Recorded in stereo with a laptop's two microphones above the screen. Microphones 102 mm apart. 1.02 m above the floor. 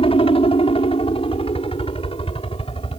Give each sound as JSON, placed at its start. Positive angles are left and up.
{"t": 0.0, "sound": "a helicopter", "side_deg": 60}